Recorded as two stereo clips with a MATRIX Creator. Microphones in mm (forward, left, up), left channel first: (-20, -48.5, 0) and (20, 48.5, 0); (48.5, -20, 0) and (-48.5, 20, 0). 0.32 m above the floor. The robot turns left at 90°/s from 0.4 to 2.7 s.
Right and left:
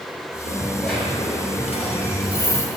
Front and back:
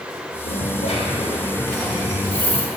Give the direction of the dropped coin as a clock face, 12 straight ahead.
12 o'clock.